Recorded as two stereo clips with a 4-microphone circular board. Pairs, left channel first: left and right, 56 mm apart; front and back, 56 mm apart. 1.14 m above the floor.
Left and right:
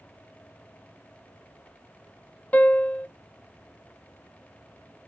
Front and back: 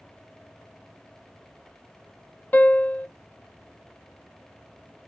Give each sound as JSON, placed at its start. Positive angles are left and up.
{"t": 2.5, "sound": "a piano", "azimuth_deg": 40, "distance_m": 0.6}